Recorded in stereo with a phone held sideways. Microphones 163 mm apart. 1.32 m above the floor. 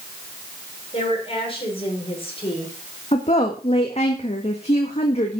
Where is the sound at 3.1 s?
40° left (ahead or behind), 1.7 m.